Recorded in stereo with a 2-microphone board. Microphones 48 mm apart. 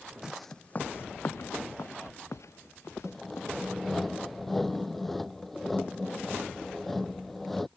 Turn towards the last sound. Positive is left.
turn(degrees=5)  # may be behind; listen again after turning